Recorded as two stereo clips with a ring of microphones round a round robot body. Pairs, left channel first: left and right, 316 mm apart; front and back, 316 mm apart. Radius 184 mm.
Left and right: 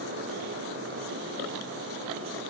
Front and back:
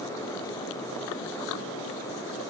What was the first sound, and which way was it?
Only background noise.